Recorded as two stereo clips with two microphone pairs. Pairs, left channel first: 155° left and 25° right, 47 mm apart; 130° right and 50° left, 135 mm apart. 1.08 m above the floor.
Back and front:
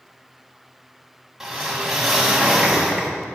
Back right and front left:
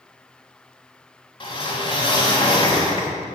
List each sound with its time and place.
1.4 s a whoosh: 105° right, 1.1 m